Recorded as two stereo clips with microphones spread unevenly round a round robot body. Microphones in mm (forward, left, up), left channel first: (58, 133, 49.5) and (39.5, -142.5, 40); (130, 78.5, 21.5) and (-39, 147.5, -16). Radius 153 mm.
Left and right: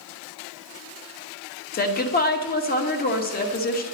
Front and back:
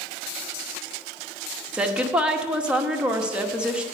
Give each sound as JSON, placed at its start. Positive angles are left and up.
{"t": 1.7, "sound": "a woman speaking", "azimuth_deg": 100, "distance_m": 1.1}